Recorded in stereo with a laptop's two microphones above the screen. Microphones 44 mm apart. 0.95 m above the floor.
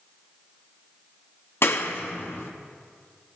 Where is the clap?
65° left (ahead or behind), 0.8 m.